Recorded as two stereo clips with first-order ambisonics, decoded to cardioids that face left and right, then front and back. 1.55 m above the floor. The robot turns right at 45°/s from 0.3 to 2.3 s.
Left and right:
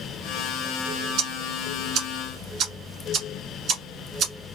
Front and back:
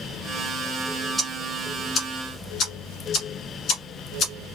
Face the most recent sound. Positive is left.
turn(degrees=-45)